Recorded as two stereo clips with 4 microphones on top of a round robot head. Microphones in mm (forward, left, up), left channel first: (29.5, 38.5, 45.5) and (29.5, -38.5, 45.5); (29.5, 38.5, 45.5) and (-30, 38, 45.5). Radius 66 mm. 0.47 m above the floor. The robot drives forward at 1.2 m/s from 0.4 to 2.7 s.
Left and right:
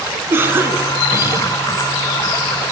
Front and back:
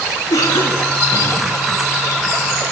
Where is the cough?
30° right, 4.5 m; by 1.4 s 40° right, 3.5 m.